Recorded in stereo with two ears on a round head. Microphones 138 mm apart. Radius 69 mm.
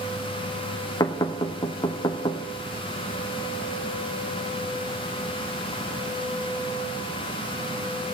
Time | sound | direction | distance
1.0 | knocking | 25° left (ahead or behind) | 0.7 m